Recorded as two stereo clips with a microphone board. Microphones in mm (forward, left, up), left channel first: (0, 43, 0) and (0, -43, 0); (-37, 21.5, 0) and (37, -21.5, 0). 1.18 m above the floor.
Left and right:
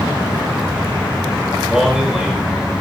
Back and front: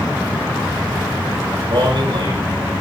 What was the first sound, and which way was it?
A man speaking, 5° right.